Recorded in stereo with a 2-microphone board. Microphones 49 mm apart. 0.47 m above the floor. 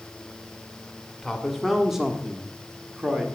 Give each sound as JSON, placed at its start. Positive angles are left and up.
{"t": 1.2, "sound": "a man speaking", "side_deg": 5, "distance_m": 0.9}